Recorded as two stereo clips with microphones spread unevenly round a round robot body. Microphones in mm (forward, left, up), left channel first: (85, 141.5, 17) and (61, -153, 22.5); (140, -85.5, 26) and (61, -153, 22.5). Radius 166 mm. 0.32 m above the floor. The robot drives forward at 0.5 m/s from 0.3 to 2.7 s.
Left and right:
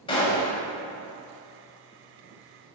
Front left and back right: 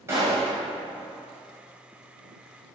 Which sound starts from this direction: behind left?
A gunshot, at 0.1 s.